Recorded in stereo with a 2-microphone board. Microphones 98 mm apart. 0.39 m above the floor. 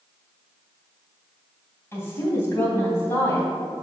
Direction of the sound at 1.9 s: 25° left (ahead or behind).